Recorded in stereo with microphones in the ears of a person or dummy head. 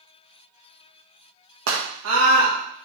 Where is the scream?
80° right, 1.7 m.